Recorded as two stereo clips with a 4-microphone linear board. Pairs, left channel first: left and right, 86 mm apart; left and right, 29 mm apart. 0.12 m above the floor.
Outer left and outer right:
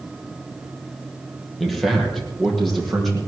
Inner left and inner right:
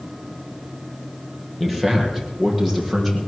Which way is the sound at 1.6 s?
Centre (ahead or behind).